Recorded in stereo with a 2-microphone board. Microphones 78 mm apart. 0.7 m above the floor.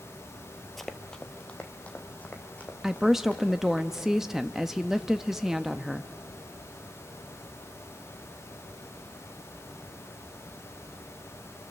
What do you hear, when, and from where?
0.8 s running footsteps: centre (ahead or behind), 1.0 m; by 3.8 s 20° left (ahead or behind), 4.5 m
2.8 s a woman speaking: 5° right (ahead or behind), 0.6 m